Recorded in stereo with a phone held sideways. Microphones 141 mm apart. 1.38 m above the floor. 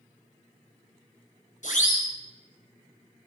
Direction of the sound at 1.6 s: 60° left (ahead or behind).